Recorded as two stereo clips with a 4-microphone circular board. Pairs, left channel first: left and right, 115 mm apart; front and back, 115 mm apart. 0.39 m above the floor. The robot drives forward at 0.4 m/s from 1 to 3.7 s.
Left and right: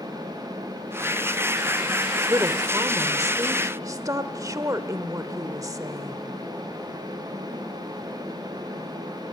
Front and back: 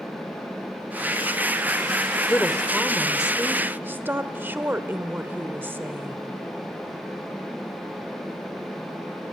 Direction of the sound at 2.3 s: 65° right.